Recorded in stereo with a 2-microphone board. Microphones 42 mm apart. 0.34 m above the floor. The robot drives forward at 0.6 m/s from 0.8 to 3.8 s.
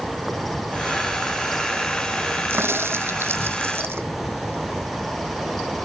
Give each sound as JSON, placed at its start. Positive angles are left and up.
{"t": 0.0, "sound": "an insect", "side_deg": -5}
{"t": 2.5, "sound": "a crack", "side_deg": -75}